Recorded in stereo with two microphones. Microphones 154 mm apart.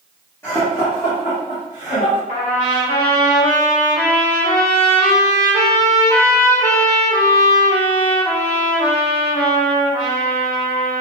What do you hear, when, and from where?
0.4 s laughter: 20° left (ahead or behind), 1.7 m; by 2.2 s 55° left (ahead or behind), 2 m
2.3 s a trumpet: 60° left (ahead or behind), 1.8 m